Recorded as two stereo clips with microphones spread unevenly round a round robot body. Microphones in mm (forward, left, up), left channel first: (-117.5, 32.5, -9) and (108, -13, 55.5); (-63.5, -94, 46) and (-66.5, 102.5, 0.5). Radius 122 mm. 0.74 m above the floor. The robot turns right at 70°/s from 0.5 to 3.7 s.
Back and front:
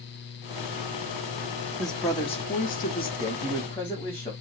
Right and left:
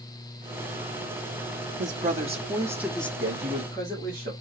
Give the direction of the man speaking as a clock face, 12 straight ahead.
9 o'clock.